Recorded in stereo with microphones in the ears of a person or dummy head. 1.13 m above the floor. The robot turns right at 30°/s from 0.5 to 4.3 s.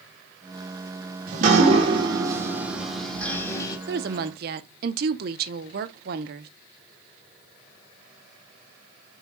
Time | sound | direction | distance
1.3 | dripping | 50° right | 1.7 m
3.9 | a woman speaking | 60° right (ahead or behind) | 0.8 m